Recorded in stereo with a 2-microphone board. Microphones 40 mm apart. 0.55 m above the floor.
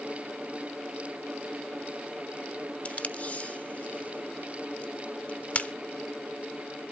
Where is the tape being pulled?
35° left (ahead or behind), 0.8 m.